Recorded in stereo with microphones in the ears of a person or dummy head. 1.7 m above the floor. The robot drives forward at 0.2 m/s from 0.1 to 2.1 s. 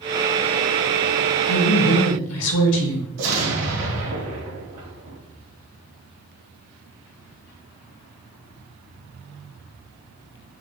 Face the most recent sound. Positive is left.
turn(degrees=-85)